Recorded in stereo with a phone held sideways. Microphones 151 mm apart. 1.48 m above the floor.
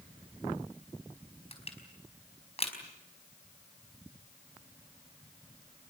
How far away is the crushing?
About 4.5 m.